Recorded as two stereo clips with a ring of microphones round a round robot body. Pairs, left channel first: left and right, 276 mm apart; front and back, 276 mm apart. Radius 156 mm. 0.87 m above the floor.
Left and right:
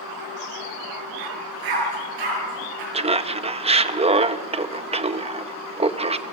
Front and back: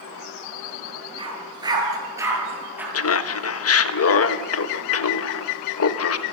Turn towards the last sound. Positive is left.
turn(degrees=-25)